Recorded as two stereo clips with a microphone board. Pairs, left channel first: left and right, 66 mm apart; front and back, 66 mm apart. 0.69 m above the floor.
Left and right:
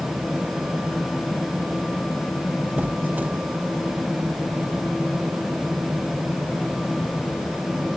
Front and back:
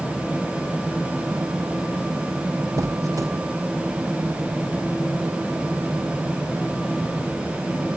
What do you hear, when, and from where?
2.8 s a squeak: 150° right, 0.6 m